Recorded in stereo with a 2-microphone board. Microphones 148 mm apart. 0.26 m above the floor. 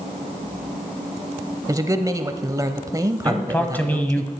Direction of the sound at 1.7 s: 25° right (ahead or behind).